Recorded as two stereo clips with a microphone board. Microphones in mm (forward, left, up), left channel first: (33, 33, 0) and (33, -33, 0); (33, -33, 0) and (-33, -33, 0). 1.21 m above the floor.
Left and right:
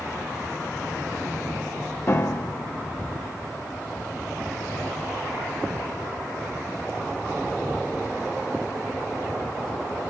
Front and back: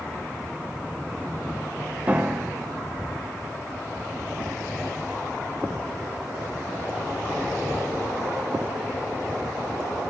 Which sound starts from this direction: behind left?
A piano, at 2.1 s.